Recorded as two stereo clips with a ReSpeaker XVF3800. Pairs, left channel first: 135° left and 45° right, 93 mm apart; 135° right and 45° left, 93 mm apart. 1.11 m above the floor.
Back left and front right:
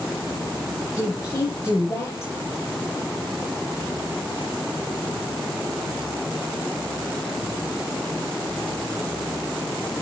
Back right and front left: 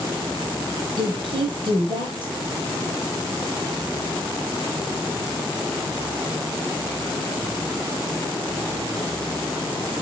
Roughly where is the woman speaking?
Left.